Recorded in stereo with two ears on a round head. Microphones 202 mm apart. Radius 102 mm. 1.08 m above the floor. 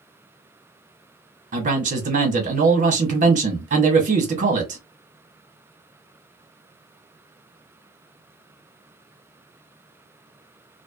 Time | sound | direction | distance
1.5 | a man speaking | 35° right (ahead or behind) | 1.0 m